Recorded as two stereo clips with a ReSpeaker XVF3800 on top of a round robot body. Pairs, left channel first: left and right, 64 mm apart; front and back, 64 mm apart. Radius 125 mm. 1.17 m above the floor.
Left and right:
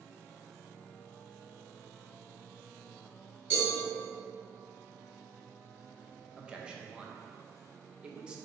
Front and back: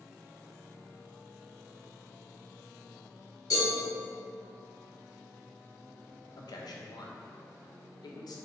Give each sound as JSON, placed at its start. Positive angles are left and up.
{"t": 3.5, "sound": "a cowbell", "azimuth_deg": -25, "distance_m": 1.8}
{"t": 6.4, "sound": "a man speaking", "azimuth_deg": -15, "distance_m": 0.6}